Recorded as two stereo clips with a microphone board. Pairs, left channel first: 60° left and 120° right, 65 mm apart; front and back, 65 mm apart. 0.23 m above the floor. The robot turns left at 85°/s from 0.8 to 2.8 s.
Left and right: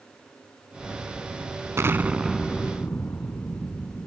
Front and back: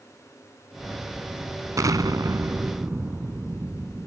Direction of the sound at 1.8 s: 160° right.